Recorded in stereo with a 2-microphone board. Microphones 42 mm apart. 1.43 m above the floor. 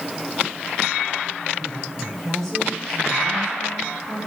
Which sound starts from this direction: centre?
A woman speaking, at 1.6 s.